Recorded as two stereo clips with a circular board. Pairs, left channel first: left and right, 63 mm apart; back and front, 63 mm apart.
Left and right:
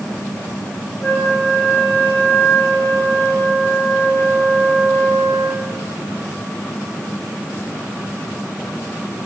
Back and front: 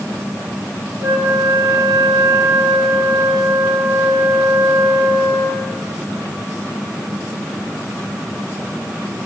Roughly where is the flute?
Ahead left.